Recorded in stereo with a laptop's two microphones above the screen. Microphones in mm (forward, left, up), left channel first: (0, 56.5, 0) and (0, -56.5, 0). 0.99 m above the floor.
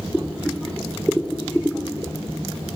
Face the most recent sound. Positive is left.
turn(degrees=-5)  # may be behind; listen again after turning